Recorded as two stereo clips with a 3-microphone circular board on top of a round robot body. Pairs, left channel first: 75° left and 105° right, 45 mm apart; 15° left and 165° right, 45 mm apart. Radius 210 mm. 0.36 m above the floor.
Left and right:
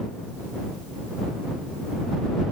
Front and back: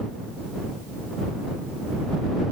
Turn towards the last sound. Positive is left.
No sound to turn to.